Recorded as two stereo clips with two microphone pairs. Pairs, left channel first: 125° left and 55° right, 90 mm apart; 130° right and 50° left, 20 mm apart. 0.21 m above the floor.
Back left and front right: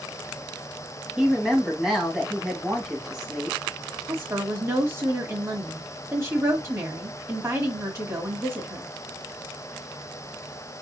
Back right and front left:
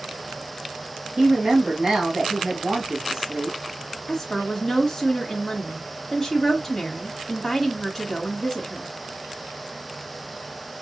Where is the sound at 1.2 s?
25° left, 2.0 m.